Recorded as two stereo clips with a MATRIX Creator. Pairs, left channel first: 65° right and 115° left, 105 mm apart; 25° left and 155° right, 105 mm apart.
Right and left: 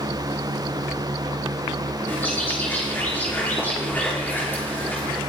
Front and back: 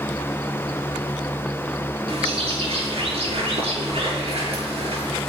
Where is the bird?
140° right, 5.5 m.